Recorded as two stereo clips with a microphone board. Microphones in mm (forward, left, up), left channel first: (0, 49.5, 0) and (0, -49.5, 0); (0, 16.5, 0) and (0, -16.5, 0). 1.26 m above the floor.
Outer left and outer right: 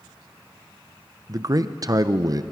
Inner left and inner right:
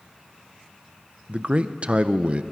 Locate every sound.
1.3 s a man speaking: 40° right (ahead or behind), 0.5 m